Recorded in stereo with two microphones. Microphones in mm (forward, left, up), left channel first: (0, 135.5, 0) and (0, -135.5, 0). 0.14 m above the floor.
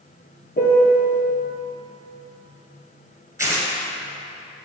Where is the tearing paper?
10° right (ahead or behind), 1.9 m.